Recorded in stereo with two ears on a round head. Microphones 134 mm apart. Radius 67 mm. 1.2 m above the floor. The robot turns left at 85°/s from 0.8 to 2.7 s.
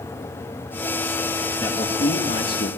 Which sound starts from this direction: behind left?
A man speaking, at 1.6 s.